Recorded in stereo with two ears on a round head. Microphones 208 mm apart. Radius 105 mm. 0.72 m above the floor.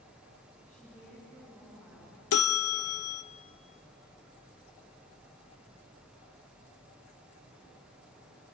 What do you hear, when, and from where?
0.7 s a woman speaking: 5° left (ahead or behind), 8 m
2.3 s a bell: 65° left (ahead or behind), 0.6 m